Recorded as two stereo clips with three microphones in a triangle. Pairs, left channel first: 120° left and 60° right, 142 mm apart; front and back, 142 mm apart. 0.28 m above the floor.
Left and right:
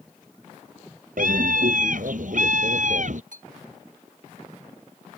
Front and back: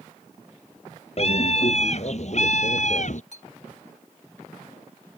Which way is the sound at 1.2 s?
45° right.